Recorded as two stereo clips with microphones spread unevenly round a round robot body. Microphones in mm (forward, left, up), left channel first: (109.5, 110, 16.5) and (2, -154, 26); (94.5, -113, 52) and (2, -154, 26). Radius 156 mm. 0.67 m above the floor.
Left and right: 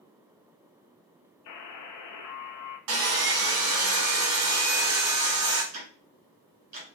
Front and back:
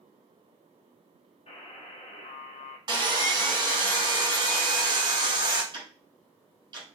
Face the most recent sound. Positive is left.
turn(degrees=-140)